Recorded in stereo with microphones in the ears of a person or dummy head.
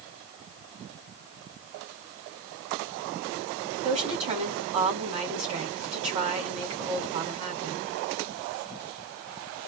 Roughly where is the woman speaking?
Right.